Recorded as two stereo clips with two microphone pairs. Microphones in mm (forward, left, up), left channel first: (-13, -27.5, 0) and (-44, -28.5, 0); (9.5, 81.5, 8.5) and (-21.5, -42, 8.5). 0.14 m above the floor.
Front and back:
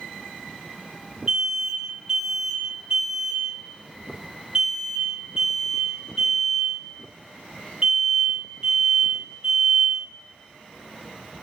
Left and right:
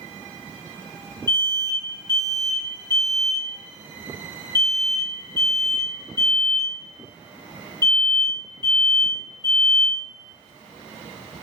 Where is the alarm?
120° left, 1.9 m.